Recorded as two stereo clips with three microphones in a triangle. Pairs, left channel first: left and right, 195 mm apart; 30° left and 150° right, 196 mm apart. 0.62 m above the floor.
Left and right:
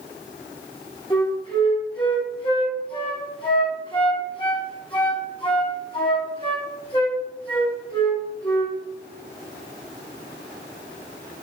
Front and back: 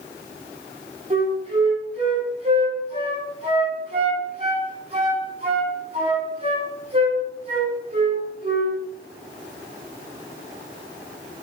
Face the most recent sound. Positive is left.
turn(degrees=155)